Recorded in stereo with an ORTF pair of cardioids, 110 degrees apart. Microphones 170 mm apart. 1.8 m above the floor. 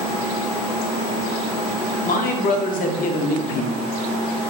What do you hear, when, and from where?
2.0 s a man speaking: 55° left, 0.5 m